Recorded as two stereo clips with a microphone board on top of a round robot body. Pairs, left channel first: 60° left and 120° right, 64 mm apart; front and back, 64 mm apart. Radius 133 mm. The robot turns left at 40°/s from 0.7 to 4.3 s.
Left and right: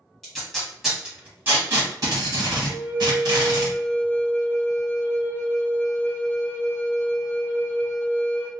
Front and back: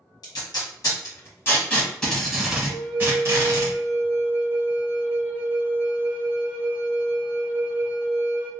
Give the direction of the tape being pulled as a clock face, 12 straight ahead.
1 o'clock.